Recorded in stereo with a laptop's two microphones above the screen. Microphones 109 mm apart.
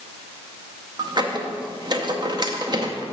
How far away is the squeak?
About 0.7 m.